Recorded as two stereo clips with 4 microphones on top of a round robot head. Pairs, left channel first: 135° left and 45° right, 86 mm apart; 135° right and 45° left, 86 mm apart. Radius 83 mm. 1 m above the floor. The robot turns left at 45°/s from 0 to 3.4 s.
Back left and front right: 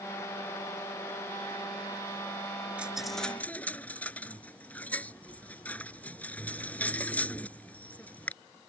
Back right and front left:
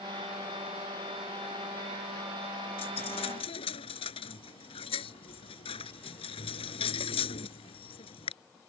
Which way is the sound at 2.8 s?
125° right.